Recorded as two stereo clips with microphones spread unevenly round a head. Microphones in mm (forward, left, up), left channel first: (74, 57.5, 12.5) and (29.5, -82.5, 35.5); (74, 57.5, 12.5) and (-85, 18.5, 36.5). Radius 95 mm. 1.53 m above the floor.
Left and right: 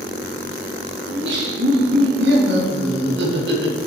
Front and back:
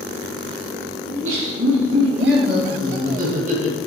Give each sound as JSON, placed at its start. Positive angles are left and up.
{"t": 1.1, "sound": "laughter", "azimuth_deg": -140, "distance_m": 3.5}